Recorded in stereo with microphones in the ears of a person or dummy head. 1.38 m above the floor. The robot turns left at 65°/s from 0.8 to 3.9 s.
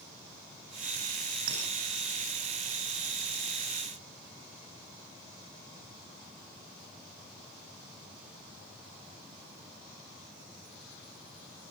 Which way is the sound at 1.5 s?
70° right (ahead or behind).